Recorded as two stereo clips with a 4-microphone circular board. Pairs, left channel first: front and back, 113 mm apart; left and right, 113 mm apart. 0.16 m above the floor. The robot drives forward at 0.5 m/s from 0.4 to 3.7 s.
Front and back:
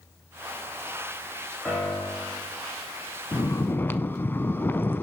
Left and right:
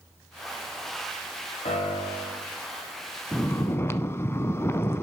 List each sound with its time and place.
1.6 s a piano: 85° left, 5 m; by 2.4 s 90° left, 5 m
3.3 s snoring: 25° left, 0.6 m; by 5.0 s 50° left, 0.5 m